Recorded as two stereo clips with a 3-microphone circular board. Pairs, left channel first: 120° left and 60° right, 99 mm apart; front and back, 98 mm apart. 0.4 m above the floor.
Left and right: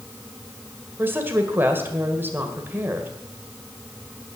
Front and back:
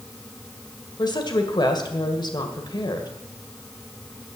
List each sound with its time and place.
1.0 s a woman speaking: straight ahead, 1.9 m